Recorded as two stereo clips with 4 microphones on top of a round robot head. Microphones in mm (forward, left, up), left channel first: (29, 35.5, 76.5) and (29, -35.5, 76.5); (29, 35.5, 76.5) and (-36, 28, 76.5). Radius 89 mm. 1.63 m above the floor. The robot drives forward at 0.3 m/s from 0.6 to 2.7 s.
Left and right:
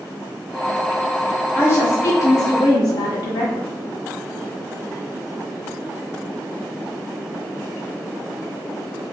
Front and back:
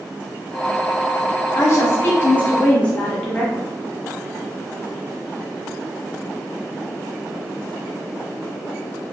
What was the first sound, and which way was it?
A woman speaking, 40° left.